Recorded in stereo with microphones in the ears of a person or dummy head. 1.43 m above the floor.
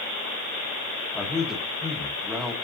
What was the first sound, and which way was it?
A man speaking, centre (ahead or behind).